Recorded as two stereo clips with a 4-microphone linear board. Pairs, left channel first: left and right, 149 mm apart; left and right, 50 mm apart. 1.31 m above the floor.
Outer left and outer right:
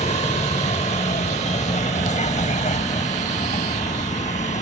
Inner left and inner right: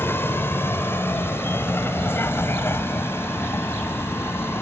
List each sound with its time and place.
0.0 s a vehicle: 50° left (ahead or behind); by 4.6 s 55° left (ahead or behind)